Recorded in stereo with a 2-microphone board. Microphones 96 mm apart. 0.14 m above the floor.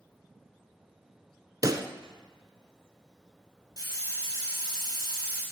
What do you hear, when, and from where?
1.6 s a pop: 40° right (ahead or behind), 0.9 m
3.8 s a hiss: 40° right (ahead or behind), 6.5 m